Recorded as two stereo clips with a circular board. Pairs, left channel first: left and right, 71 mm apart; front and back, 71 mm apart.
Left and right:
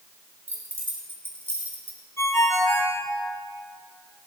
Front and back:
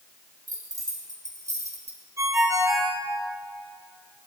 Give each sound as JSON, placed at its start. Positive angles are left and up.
{"t": 0.5, "sound": "keys jangling", "azimuth_deg": -145, "distance_m": 3.5}
{"t": 2.2, "sound": "a ringtone", "azimuth_deg": 135, "distance_m": 5.0}